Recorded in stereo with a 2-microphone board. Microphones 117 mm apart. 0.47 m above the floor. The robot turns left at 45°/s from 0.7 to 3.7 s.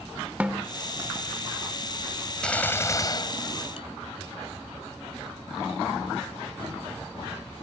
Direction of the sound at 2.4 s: 170° left.